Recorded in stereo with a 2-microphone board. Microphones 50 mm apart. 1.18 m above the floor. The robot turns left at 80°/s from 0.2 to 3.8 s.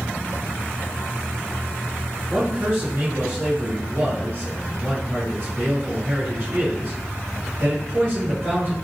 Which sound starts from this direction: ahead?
A man speaking, at 2.3 s.